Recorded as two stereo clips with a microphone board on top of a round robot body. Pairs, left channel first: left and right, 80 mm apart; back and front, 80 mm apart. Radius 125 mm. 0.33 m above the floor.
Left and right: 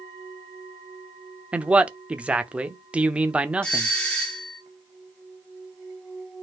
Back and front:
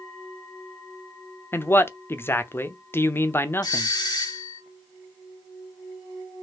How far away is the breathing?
No breathing in this recording.